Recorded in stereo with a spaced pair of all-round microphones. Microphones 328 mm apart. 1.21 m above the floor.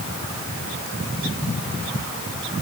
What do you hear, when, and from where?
Only background noise.